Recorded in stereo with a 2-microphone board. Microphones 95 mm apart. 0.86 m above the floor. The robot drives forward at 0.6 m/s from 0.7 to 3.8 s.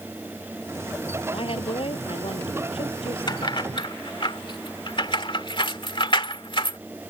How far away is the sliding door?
I don't hear a sliding door.